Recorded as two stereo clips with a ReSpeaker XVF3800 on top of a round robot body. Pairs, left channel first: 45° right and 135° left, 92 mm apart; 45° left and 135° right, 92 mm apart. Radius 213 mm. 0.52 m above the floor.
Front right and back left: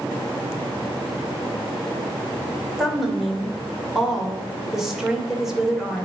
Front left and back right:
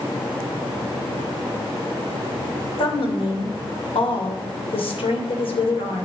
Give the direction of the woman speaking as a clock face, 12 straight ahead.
10 o'clock.